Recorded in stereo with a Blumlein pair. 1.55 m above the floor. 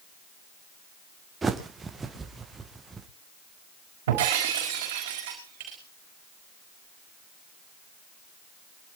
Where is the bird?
15° right, 1.7 m.